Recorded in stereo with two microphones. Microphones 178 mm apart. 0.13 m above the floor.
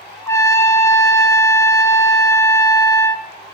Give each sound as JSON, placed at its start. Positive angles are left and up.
{"t": 0.3, "sound": "a trumpet", "side_deg": 15, "distance_m": 0.6}